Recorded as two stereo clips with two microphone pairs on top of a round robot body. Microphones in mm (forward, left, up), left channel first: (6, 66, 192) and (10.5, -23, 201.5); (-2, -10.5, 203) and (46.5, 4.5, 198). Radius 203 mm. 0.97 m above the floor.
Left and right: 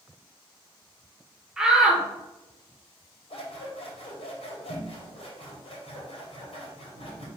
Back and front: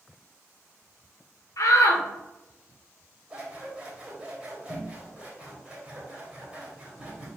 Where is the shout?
170° right, 1.5 m.